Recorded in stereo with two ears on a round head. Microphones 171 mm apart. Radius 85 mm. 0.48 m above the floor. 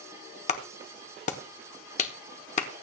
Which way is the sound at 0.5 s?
40° left (ahead or behind).